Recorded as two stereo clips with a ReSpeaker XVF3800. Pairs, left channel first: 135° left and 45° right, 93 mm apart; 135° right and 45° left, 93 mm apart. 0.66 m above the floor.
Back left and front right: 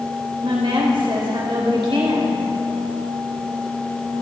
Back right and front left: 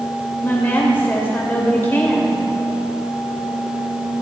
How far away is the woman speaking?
About 2.5 m.